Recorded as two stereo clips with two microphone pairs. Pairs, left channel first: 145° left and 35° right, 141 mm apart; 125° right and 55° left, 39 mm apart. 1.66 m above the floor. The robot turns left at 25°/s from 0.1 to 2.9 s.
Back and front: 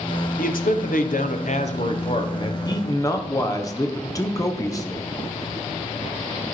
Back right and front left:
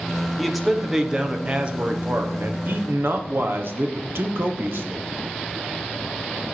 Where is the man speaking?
145° left, 1.1 m; by 5.0 s 80° left, 1.1 m.